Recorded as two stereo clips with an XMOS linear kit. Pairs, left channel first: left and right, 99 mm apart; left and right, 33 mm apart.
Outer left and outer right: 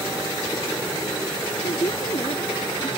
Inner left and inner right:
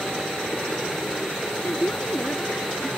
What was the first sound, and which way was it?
A woman speaking, 55° left (ahead or behind).